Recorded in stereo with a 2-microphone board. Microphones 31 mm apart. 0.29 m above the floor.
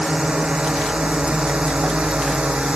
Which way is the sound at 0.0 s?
30° right (ahead or behind).